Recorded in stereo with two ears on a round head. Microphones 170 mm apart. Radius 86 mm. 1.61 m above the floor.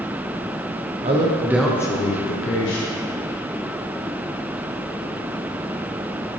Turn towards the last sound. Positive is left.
turn(degrees=75)  # may be behind; listen again after turning